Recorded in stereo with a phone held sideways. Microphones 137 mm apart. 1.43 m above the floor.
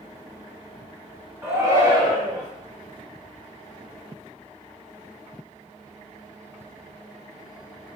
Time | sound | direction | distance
1.4 | a shout | 20° right (ahead or behind) | 0.6 m